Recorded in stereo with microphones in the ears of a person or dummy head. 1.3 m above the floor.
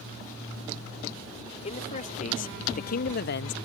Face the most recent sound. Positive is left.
turn(degrees=60)  # may be behind; listen again after turning